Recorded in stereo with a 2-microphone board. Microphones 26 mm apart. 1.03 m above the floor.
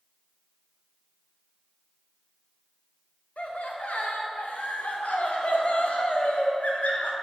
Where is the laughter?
80° left, 0.6 m.